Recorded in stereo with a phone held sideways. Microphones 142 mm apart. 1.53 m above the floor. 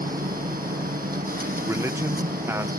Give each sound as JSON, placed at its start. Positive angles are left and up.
{"t": 0.0, "sound": "a machine running", "side_deg": -75}
{"t": 1.6, "sound": "a man speaking", "side_deg": -15}